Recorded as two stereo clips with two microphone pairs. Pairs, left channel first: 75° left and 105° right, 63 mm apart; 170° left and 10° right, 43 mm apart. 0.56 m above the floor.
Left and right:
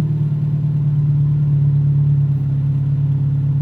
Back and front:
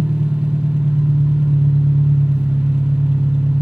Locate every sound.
0.0 s an engine running: 55° right, 0.7 m